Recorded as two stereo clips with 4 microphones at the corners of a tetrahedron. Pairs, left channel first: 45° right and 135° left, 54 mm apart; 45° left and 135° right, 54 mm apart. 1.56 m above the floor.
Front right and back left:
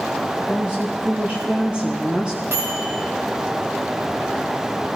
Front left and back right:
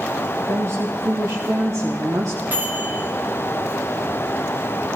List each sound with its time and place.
0.4 s a woman speaking: 155° right, 1.4 m
2.5 s a microwave: 170° left, 3.5 m